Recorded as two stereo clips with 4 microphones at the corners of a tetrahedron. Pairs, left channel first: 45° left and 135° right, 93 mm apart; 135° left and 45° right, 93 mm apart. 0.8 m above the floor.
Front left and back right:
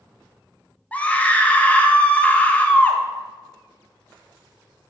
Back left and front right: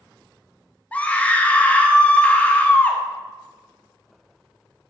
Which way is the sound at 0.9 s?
90° left.